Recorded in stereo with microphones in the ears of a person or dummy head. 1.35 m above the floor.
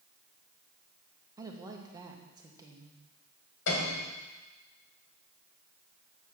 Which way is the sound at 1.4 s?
20° right (ahead or behind).